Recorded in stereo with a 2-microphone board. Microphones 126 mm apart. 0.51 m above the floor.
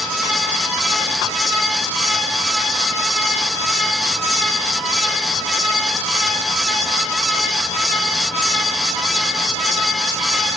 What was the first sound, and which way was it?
Only background noise.